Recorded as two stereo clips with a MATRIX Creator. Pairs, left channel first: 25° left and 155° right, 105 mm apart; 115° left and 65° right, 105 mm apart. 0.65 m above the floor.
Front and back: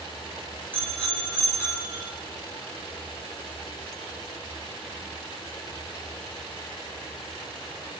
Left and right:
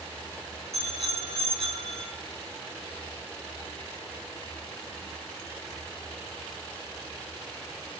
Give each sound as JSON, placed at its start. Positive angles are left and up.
{"t": 0.7, "sound": "a bicycle bell", "azimuth_deg": -55, "distance_m": 5.5}